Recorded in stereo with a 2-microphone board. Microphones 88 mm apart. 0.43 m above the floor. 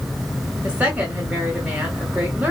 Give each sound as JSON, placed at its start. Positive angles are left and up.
{"t": 0.6, "sound": "a woman speaking", "side_deg": -15, "distance_m": 1.4}